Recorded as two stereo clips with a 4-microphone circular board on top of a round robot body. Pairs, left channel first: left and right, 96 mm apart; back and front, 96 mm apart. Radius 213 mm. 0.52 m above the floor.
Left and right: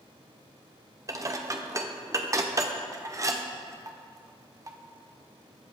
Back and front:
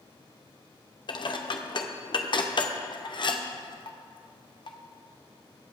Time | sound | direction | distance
1.1 | dishes clattering | 145° right | 1.3 m